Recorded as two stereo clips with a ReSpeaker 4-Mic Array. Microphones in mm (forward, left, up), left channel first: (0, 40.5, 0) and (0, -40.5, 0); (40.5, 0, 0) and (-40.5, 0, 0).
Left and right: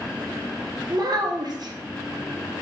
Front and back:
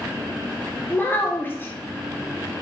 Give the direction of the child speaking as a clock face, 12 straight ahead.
2 o'clock.